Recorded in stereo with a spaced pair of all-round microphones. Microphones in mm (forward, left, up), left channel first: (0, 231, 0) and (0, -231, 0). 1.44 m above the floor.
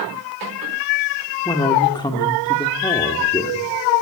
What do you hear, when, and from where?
1.4 s a man speaking: 10° left (ahead or behind), 3 m